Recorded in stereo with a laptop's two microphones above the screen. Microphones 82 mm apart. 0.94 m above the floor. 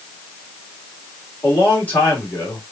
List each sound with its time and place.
1.4 s a man speaking: 25° left (ahead or behind), 2 m